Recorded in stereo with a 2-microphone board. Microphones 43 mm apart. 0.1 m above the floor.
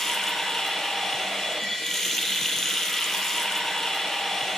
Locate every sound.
0.0 s running water: 10° left (ahead or behind), 2 m